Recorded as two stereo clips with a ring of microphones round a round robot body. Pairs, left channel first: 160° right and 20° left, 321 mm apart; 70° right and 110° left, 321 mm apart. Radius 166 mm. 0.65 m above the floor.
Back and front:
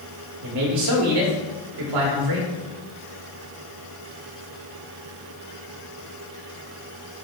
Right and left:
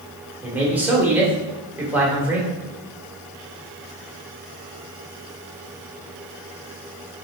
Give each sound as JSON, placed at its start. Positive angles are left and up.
{"t": 0.4, "sound": "a man speaking", "azimuth_deg": 30, "distance_m": 1.9}